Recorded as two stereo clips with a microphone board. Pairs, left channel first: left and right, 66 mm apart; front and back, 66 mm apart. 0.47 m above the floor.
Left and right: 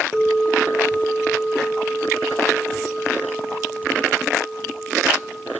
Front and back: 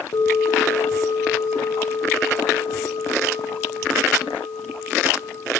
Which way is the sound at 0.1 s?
5° left.